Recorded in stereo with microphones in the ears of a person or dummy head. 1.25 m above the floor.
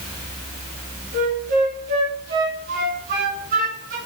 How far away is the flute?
About 2 m.